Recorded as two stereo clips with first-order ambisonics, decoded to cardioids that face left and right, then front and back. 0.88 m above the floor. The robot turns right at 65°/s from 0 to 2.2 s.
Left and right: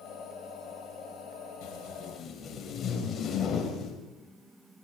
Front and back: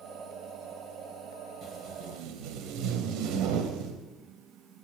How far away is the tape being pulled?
About 4 m.